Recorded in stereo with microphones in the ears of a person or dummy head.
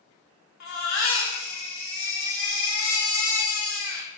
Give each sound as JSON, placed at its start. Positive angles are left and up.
{"t": 0.6, "sound": "a baby crying", "side_deg": 65, "distance_m": 1.4}